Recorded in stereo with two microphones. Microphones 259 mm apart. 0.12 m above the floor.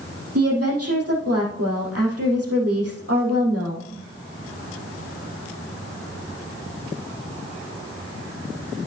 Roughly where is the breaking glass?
I don't hear breaking glass.